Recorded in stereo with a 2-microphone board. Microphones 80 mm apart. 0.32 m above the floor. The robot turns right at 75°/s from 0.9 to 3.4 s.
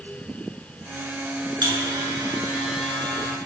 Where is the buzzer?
90° right, 4 m; by 3.4 s 40° left, 4 m.